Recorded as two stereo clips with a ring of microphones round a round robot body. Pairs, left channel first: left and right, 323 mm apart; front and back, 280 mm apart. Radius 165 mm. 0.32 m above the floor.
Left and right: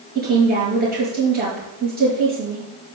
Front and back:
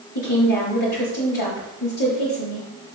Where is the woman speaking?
25° right, 5 m.